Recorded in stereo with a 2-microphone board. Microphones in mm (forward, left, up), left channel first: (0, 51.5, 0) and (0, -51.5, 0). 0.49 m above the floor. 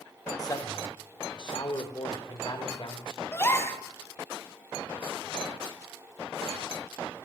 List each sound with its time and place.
0.4 s a man speaking: 35° left (ahead or behind), 1.6 m; by 3.2 s 55° left (ahead or behind), 2.5 m
3.3 s a gasp: 25° left (ahead or behind), 1.4 m